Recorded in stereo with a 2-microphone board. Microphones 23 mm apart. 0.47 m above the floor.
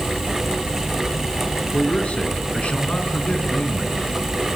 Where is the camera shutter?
No camera shutter in this recording.